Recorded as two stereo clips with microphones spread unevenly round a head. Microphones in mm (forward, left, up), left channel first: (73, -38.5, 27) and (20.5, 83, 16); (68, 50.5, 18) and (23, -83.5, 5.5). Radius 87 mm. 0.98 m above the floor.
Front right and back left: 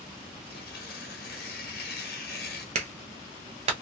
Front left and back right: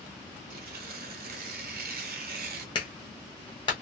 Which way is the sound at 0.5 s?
90° right.